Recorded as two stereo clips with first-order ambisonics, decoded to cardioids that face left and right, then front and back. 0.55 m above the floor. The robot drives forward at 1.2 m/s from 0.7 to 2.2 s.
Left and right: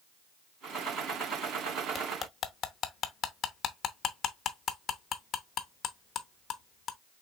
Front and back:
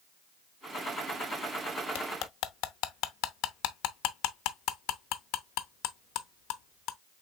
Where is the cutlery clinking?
20° left, 0.9 m; by 7.0 s 30° left, 0.7 m.